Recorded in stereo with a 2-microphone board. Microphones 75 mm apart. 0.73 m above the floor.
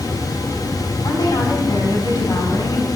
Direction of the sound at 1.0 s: 80° left.